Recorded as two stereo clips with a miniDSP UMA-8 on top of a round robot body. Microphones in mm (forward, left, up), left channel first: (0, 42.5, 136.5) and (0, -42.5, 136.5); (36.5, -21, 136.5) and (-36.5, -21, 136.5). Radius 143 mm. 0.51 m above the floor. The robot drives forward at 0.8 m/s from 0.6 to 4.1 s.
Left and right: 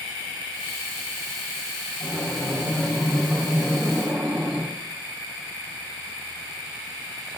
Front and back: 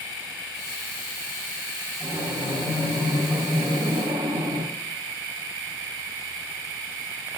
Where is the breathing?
170° right, 3 m; by 4.7 s 175° right, 5 m.